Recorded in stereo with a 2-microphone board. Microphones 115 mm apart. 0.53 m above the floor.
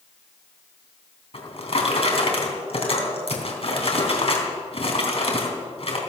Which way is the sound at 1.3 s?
55° left (ahead or behind).